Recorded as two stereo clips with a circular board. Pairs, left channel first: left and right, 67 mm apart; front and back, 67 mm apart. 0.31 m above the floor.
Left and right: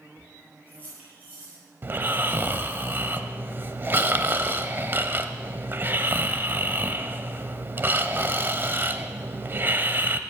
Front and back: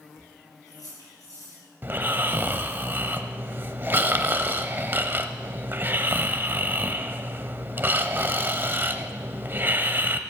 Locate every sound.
0.2 s keys jangling: 25° right, 5.5 m
1.8 s snoring: 135° right, 0.7 m